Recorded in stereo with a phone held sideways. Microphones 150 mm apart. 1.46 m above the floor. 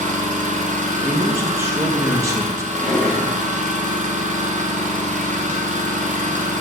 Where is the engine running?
55° right (ahead or behind), 1.0 m.